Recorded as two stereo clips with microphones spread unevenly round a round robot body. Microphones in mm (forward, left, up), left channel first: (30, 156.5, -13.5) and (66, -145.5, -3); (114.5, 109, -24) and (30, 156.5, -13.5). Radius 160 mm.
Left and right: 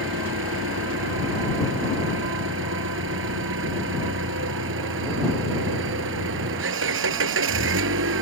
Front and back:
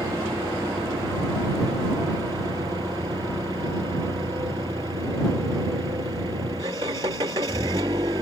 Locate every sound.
0.0 s an engine running: 140° right